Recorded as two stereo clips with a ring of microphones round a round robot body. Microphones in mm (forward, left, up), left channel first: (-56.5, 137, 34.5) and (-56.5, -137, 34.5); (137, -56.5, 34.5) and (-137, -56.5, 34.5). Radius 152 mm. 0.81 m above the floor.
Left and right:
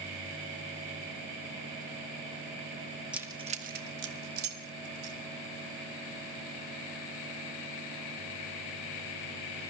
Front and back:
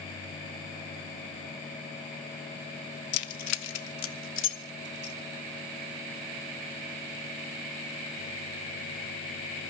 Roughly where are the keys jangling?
Ahead.